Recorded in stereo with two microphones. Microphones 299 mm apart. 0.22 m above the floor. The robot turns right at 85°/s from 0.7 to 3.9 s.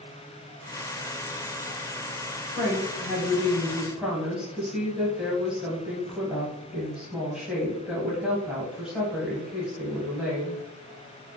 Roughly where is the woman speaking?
Left.